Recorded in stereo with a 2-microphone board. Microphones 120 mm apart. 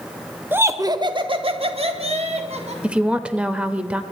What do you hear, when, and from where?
0.5 s laughter: 15° right (ahead or behind), 0.8 m; by 2.7 s 70° right (ahead or behind), 2.5 m
2.8 s a woman speaking: 10° right (ahead or behind), 0.9 m